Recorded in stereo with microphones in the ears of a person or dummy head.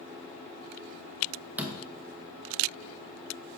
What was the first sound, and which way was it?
A door slam, 5° right (ahead or behind).